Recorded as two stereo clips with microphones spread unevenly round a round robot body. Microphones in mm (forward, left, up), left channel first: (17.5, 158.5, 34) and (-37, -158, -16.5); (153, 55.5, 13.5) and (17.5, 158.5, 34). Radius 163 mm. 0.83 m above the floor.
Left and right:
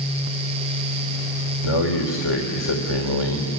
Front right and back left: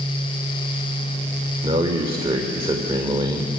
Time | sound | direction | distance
1.6 | a man speaking | 80° left | 2.5 m